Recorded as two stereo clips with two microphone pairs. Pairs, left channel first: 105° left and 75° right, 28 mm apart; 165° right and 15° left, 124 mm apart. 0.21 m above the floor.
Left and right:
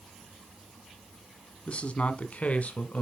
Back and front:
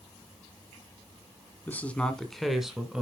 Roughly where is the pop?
I don't hear a pop.